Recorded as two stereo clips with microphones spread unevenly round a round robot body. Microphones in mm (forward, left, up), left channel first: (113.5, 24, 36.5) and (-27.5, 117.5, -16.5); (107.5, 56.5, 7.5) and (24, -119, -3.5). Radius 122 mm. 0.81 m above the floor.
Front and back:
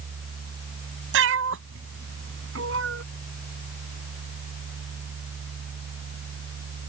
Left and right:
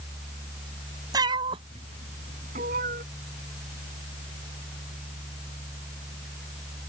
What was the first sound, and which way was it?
A cat meowing, 170° left.